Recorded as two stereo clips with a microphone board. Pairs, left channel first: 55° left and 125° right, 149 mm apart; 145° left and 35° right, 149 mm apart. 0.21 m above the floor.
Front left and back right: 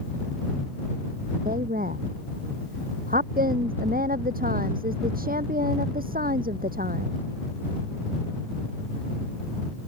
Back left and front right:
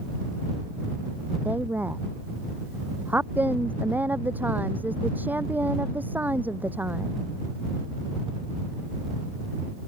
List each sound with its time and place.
1.4 s a woman speaking: 110° right